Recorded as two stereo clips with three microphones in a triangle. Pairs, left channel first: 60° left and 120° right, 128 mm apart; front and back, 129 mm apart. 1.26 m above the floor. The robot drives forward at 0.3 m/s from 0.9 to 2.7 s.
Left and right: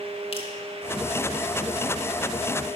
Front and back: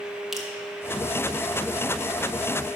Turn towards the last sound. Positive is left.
turn(degrees=130)